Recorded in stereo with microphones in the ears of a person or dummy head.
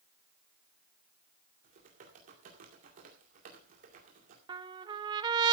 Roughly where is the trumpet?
Right.